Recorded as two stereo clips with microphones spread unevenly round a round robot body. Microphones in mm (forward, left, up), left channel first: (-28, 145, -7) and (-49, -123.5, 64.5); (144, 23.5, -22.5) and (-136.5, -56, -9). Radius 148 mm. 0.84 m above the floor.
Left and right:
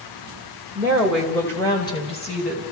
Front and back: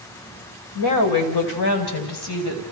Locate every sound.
0.8 s a woman speaking: 10° right, 3.5 m; by 2.6 s 25° left, 4.5 m